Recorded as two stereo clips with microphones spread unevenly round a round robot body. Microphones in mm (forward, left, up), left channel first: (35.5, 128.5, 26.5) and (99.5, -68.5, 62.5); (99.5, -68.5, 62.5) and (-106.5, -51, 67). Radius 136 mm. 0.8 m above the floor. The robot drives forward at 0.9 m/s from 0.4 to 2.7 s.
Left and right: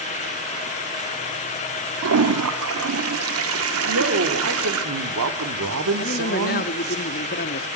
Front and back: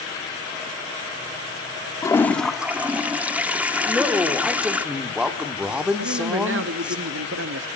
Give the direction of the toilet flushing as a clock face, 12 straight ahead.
3 o'clock.